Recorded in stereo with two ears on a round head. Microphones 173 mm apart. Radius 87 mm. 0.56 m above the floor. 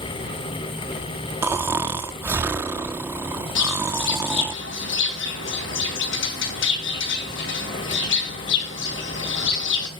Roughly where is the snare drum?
I don't hear a snare drum.